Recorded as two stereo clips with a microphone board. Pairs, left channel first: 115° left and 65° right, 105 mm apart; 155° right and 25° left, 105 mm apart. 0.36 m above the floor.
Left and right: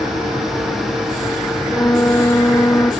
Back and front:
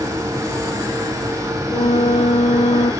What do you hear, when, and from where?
1.7 s a flute: straight behind